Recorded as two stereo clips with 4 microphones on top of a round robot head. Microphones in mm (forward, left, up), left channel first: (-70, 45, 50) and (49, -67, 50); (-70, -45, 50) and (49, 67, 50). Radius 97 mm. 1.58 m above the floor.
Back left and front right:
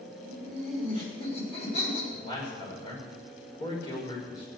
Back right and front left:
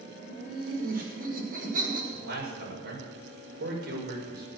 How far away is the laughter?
About 7 m.